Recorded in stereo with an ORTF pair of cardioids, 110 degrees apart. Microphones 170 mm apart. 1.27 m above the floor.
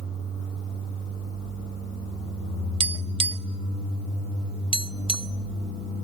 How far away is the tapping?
About 1.0 m.